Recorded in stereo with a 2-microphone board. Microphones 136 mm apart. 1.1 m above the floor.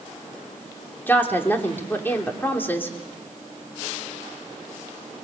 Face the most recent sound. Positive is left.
turn(degrees=15)  # may be behind; listen again after turning